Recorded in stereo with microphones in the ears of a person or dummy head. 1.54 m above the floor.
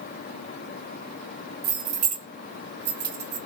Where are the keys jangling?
25° right (ahead or behind), 1.1 m; by 3.4 s 55° right (ahead or behind), 1.5 m.